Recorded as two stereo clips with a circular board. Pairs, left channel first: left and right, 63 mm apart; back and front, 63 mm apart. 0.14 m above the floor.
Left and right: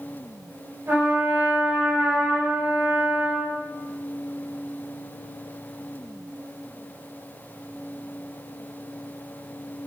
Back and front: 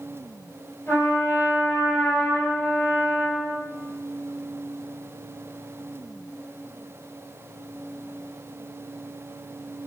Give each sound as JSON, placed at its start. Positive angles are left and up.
{"t": 0.9, "sound": "a trumpet", "azimuth_deg": -130, "distance_m": 2.0}